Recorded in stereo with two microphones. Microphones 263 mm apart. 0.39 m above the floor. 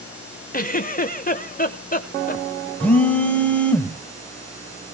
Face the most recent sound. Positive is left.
turn(degrees=5)  # may be behind; listen again after turning